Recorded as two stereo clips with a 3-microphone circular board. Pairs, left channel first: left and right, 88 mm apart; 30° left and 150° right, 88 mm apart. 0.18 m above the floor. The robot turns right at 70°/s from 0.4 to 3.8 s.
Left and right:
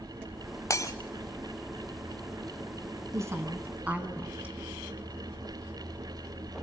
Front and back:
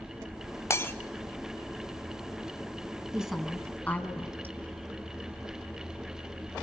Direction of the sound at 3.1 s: 75° right.